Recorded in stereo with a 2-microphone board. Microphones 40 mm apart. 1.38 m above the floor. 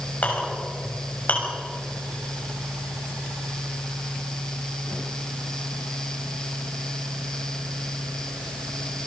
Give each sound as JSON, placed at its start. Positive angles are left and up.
{"t": 0.2, "sound": "a clink", "side_deg": 40, "distance_m": 6.5}